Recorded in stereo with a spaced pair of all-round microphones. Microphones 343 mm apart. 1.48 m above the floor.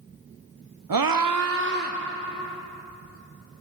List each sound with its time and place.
0.9 s a scream: 75° right (ahead or behind), 0.8 m; by 2.0 s 25° right (ahead or behind), 1.4 m